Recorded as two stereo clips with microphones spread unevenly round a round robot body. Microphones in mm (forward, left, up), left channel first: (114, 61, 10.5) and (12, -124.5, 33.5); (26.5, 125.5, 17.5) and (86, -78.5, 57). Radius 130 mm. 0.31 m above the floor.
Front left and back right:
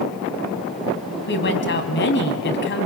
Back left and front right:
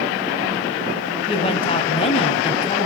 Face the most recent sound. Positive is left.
turn(degrees=55)